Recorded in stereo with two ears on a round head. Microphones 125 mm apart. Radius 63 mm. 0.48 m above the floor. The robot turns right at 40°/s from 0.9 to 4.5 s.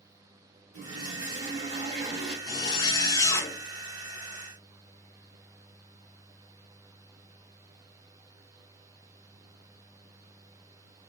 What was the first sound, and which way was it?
A toilet flushing, 105° right.